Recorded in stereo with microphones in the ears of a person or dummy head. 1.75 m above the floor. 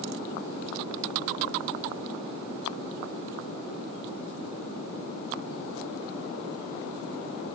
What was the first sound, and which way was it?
Only background noise.